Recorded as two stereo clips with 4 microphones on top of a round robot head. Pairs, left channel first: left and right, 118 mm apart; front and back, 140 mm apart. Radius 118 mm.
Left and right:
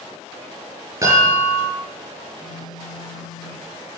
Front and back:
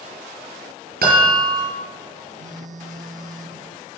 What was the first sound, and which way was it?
A chime, 160° right.